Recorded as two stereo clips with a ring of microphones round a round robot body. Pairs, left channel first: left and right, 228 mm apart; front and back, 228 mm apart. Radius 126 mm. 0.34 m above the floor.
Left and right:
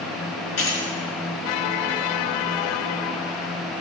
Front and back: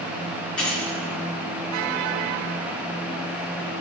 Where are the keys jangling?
85° left, 4 m.